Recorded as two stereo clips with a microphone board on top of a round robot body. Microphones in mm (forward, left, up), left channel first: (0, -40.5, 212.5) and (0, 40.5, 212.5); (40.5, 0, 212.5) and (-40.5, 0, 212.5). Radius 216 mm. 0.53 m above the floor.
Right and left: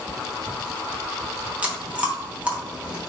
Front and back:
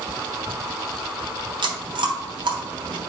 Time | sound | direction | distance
1.6 | chewing | 165° left | 1.1 m